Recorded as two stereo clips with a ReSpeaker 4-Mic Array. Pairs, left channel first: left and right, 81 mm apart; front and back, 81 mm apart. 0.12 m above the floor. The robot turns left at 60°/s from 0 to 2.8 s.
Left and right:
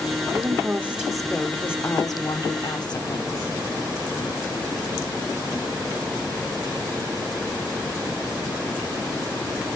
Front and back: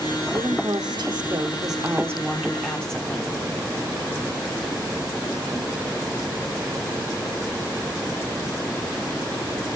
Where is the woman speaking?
130° right, 2.5 m; by 3.4 s 80° left, 2.5 m.